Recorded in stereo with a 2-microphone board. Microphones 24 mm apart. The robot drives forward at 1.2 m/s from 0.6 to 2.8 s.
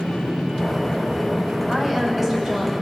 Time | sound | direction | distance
1.7 | a woman speaking | 10° right (ahead or behind) | 6.5 m